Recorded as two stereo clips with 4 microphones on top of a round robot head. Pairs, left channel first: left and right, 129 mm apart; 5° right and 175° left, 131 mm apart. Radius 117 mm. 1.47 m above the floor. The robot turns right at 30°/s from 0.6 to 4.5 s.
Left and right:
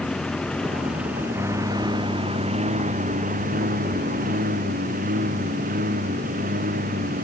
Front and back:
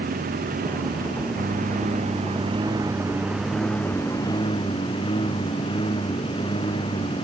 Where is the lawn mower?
175° left; by 7.2 s 70° right.